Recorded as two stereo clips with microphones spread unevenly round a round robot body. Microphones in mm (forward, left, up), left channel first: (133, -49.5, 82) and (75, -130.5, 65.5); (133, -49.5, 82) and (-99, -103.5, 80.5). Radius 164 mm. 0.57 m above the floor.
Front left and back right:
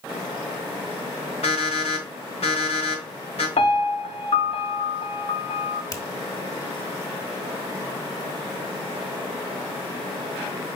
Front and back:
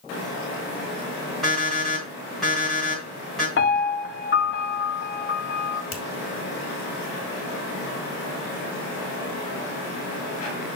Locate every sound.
1.4 s an alarm clock: 100° left, 4 m
3.6 s a piano: 55° left, 1.1 m
5.9 s a finger snap: 5° right, 2 m